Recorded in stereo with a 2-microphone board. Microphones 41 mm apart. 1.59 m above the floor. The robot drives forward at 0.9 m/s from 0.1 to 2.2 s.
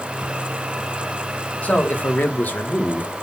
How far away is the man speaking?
About 2.5 m.